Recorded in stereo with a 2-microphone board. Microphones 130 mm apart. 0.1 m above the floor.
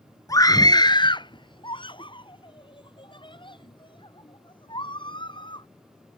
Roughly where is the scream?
Left.